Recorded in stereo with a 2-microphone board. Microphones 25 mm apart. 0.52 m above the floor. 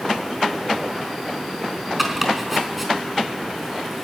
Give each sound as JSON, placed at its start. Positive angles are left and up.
{"t": 2.0, "sound": "chopping", "side_deg": -5, "distance_m": 4.5}